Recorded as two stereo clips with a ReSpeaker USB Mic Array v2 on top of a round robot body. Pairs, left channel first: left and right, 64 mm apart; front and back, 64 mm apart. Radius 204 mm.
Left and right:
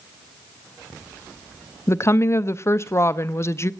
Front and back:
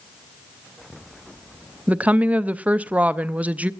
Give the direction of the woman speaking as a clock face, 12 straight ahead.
8 o'clock.